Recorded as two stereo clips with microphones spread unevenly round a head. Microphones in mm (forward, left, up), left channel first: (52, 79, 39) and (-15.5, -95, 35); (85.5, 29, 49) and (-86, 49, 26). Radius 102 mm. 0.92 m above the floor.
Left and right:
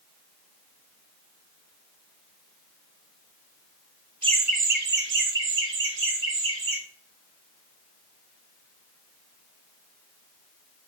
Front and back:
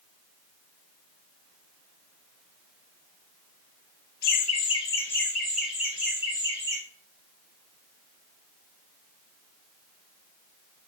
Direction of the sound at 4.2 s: 45° right.